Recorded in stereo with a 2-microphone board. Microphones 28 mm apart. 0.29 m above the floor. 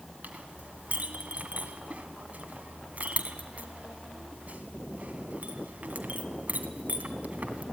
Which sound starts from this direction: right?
A clink, at 0.2 s.